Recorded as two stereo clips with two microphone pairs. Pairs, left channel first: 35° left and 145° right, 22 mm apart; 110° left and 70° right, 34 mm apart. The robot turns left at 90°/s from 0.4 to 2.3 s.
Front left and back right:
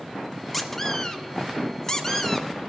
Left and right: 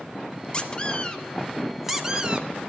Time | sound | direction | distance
0.5 | a squeak | 125° left | 0.9 m